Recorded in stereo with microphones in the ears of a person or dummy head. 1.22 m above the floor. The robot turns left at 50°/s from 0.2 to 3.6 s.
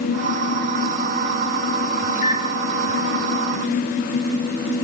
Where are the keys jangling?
I don't hear keys jangling.